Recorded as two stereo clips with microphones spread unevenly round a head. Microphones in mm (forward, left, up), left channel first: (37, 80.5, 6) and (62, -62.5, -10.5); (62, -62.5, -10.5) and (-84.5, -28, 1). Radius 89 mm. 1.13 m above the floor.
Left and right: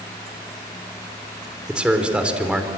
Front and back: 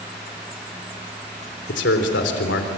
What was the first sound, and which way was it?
A man speaking, 5° left.